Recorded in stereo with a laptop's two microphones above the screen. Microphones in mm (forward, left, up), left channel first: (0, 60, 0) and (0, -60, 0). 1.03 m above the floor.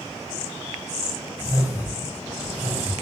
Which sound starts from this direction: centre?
A whoosh, at 1.4 s.